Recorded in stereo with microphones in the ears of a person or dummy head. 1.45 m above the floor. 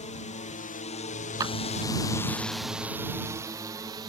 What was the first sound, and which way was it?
A drone, 35° left (ahead or behind).